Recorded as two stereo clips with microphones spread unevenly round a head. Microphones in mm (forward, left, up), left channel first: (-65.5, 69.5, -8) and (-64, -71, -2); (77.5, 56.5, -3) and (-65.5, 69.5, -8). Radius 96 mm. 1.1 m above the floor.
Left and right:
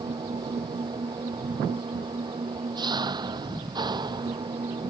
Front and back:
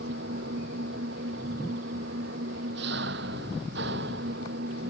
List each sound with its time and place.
0.0 s an engine running: 150° right